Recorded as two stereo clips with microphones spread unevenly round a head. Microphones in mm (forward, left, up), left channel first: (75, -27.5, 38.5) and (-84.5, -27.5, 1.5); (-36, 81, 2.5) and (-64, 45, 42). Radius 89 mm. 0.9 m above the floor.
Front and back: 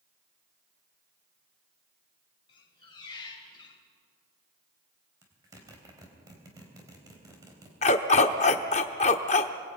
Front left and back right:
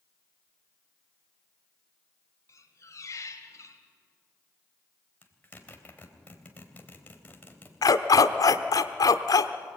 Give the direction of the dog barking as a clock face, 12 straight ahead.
10 o'clock.